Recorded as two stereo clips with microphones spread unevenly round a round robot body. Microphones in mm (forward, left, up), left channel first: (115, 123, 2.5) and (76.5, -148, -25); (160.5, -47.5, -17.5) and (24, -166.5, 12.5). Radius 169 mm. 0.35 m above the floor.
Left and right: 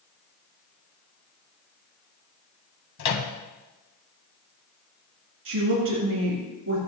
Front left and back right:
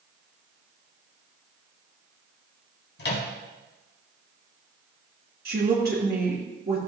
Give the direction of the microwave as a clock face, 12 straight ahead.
10 o'clock.